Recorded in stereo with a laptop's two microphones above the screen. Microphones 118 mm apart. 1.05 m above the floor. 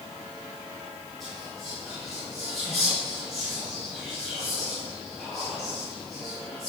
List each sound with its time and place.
1.2 s whispering: centre (ahead or behind), 2 m